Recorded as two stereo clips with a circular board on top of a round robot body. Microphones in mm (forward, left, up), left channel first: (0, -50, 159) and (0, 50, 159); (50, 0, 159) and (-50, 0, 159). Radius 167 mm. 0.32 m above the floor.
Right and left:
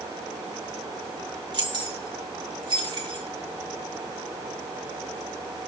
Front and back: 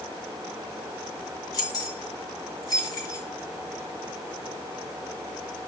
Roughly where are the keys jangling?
Ahead left.